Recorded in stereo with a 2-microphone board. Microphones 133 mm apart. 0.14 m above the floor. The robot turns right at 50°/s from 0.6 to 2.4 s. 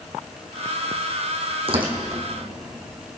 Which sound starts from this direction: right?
Tearing paper, at 1.7 s.